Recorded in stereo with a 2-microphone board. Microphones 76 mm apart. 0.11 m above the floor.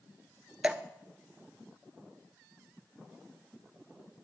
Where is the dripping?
15° right (ahead or behind), 0.6 m.